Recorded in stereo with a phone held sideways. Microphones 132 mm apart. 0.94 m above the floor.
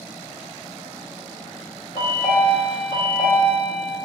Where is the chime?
40° left (ahead or behind), 2.5 m.